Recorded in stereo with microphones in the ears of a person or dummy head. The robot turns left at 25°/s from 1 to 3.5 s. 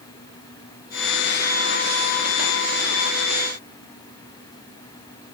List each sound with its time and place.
Only background noise.